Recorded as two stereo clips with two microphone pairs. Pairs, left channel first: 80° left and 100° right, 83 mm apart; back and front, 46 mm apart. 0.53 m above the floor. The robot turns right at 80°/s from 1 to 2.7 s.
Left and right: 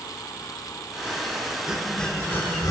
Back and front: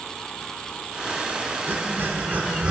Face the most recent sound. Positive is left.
turn(degrees=55)